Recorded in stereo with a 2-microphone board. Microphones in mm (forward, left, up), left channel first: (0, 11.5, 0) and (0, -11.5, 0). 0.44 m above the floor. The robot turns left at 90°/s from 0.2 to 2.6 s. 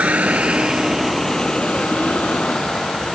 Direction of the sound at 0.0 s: 80° right.